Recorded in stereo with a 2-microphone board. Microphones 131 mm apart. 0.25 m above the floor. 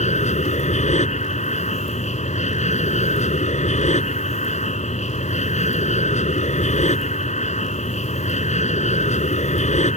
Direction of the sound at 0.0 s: 60° left (ahead or behind).